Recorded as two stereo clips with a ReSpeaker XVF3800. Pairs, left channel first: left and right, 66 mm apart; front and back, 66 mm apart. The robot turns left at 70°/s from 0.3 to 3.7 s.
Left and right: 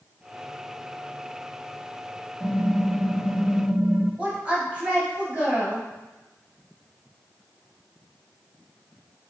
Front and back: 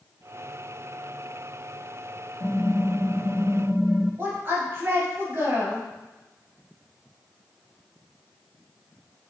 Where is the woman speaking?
150° right, 1.6 m.